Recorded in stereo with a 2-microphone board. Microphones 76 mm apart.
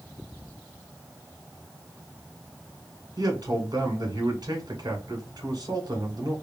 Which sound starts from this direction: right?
A man speaking, at 3.2 s.